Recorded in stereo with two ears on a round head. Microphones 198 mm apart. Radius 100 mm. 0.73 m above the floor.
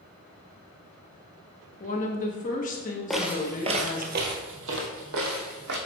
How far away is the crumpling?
No crumpling in this recording.